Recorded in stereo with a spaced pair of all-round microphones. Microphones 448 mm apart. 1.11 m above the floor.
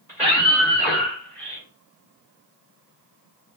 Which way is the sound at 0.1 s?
5° right (ahead or behind).